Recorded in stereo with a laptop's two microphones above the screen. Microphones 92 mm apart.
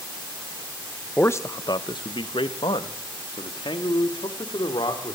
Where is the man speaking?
20° left (ahead or behind), 0.8 m; by 5.2 s 55° left (ahead or behind), 3.5 m.